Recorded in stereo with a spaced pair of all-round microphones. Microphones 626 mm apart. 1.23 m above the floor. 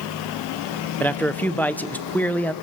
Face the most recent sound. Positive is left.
turn(degrees=5)  # may be behind; listen again after turning